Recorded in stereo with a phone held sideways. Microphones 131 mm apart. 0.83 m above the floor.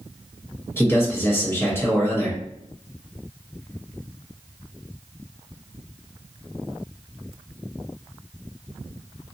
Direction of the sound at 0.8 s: 20° left (ahead or behind).